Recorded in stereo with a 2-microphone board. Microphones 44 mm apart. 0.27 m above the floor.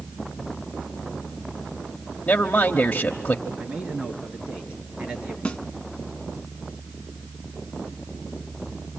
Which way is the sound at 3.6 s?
30° right (ahead or behind).